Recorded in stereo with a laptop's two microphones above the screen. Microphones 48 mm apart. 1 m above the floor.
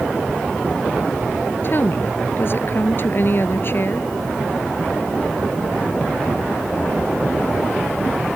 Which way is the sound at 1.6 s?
45° left (ahead or behind).